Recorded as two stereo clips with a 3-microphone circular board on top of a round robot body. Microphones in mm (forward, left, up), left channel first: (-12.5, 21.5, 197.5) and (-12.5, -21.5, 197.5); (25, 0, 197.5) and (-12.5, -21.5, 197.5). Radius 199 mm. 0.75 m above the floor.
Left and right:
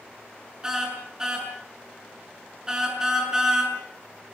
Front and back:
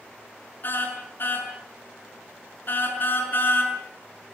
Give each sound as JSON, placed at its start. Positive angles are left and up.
{"t": 0.6, "sound": "a car horn", "azimuth_deg": -15, "distance_m": 5.5}